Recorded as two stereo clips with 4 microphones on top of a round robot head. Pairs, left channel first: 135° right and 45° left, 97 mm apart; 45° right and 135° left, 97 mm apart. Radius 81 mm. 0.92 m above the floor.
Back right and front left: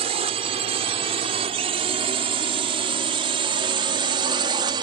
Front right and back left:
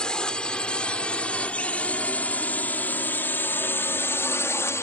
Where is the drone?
35° left; by 4.8 s 15° left.